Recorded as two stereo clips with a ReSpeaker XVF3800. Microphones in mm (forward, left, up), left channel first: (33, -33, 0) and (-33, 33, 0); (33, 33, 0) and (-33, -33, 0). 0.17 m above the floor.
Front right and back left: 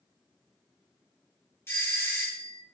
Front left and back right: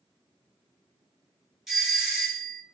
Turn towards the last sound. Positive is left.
turn(degrees=-50)